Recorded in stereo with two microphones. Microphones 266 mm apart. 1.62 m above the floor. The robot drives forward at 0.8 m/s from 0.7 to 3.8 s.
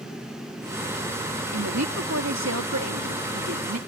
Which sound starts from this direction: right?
A woman speaking, at 1.5 s.